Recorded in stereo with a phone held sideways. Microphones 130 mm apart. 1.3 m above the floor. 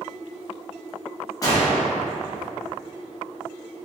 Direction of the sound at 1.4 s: 25° left (ahead or behind).